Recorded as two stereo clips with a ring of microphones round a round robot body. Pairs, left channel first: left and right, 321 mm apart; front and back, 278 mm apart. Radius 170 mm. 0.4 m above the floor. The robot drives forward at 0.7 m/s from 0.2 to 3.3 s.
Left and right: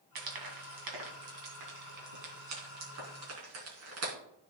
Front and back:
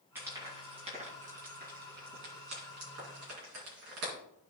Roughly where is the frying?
Right.